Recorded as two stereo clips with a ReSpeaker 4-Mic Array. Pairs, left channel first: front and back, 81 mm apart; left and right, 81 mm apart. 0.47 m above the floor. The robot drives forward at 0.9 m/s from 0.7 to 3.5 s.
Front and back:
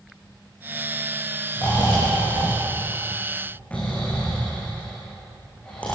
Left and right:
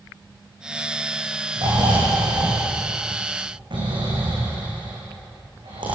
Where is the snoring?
60° right, 7.5 m; by 6.0 s 75° right, 6.5 m.